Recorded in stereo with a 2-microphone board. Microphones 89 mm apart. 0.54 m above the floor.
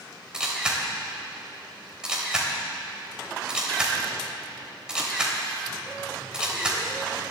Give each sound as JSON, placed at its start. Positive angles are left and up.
{"t": 0.3, "sound": "a camera shutter", "side_deg": -10, "distance_m": 3.0}